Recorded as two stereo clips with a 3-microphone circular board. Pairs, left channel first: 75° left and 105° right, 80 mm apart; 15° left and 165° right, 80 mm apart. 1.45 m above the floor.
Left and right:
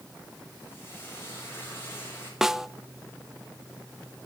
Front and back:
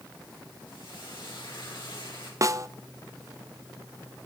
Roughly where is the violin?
No violin in this recording.